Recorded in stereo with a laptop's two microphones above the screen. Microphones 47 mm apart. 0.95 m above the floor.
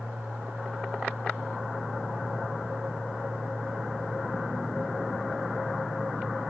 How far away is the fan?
About 2 m.